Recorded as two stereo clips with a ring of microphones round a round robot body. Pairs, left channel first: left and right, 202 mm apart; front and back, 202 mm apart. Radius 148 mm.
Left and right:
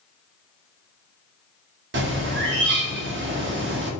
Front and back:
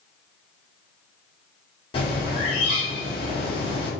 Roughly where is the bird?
Right.